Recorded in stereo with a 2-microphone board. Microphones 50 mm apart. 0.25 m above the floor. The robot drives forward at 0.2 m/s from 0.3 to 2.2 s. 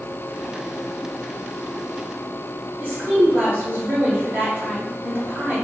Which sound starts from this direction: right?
A woman speaking, at 2.8 s.